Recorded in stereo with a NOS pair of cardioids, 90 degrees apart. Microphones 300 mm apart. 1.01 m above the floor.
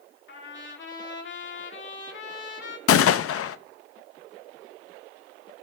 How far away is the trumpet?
About 2 m.